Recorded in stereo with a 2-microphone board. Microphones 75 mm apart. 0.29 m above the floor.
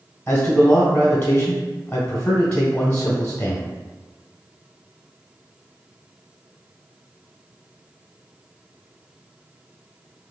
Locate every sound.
0.3 s a man speaking: 15° left (ahead or behind), 1.4 m